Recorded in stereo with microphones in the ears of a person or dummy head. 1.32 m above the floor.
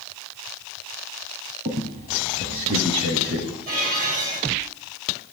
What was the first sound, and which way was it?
A squeak, 35° right (ahead or behind).